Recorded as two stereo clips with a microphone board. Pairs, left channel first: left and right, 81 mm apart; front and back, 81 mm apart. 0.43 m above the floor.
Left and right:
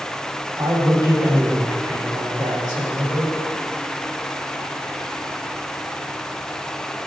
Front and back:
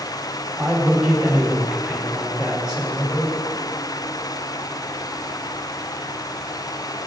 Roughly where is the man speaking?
Right.